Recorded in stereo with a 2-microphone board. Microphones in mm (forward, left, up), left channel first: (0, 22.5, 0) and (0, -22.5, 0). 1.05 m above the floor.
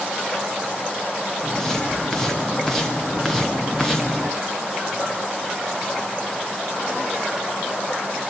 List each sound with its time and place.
1.4 s footsteps: 10° left (ahead or behind), 7 m; by 4.3 s 5° left (ahead or behind), 4 m